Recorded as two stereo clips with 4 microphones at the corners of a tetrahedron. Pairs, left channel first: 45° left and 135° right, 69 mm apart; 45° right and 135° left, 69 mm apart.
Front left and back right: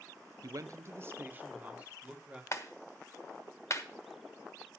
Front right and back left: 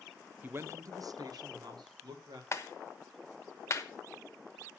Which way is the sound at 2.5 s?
5° left.